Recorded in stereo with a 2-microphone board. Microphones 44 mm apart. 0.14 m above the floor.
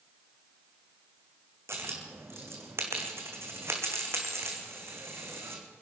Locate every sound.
1.7 s a dropped coin: 80° right, 2.5 m